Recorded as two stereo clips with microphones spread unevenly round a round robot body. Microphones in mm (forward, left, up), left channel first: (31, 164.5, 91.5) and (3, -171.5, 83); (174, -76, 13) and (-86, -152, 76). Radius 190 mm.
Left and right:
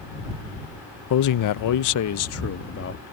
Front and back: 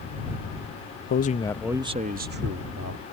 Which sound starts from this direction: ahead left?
A man speaking, at 1.1 s.